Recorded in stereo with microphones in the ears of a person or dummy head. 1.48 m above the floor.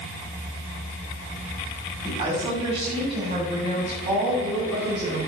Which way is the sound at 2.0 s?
35° right (ahead or behind).